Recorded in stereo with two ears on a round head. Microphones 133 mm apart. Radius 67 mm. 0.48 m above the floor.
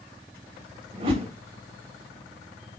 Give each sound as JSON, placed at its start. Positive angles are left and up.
{"t": 0.9, "sound": "a whoosh", "side_deg": -35, "distance_m": 1.1}